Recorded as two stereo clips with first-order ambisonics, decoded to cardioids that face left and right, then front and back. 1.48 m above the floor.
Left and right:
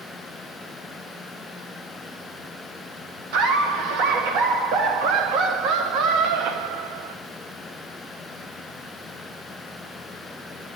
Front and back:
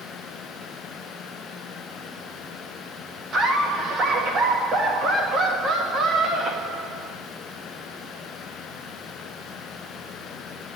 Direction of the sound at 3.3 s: 115° right.